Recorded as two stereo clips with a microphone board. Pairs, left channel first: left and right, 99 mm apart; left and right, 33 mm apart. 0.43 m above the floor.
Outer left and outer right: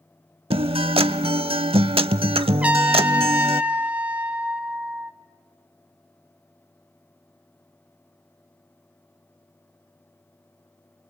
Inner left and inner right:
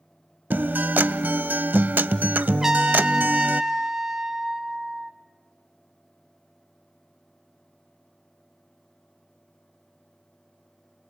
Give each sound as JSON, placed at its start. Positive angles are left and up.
{"t": 0.5, "sound": "a guitar", "side_deg": -70, "distance_m": 0.5}
{"t": 2.6, "sound": "a trumpet", "side_deg": -15, "distance_m": 0.9}